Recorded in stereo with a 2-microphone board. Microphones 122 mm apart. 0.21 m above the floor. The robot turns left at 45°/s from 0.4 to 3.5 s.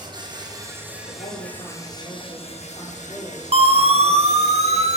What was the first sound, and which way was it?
An insect, 145° right.